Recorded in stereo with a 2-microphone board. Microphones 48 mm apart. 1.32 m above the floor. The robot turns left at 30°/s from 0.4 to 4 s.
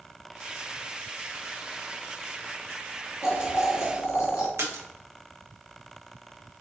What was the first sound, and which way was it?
Boiling, 75° left (ahead or behind).